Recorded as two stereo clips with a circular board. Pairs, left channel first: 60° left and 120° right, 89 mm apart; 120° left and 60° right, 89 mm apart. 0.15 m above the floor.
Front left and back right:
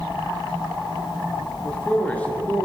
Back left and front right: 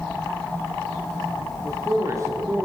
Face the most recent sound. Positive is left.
turn(degrees=-10)